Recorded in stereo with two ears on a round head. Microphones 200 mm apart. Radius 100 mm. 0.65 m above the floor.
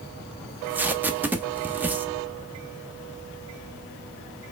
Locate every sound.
0.5 s tape being pulled: 10° right (ahead or behind), 0.7 m